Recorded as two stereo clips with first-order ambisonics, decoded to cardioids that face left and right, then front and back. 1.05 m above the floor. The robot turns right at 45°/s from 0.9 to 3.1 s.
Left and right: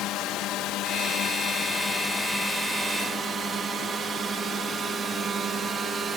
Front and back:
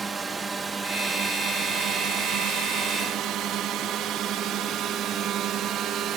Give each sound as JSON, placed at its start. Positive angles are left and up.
{"t": 0.0, "sound": "a drone", "azimuth_deg": 110}